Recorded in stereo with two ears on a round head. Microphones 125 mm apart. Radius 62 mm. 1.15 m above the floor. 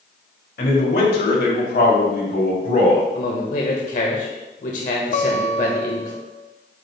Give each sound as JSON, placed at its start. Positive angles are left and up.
{"t": 0.6, "sound": "a man speaking", "side_deg": 75, "distance_m": 2.5}
{"t": 3.1, "sound": "a man speaking", "side_deg": 60, "distance_m": 1.3}
{"t": 5.1, "sound": "a guitar", "side_deg": 55, "distance_m": 0.8}